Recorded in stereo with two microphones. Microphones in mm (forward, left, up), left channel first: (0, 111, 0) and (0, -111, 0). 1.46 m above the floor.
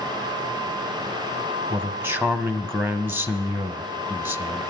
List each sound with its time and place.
1.7 s a man speaking: 10° right (ahead or behind), 0.9 m